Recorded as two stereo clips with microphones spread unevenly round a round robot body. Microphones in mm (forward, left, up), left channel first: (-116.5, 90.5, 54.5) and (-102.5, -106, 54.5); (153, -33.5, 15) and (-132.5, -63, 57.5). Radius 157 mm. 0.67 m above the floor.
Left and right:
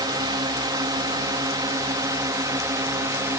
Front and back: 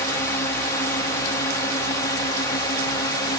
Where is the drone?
40° right; by 3.4 s 30° right.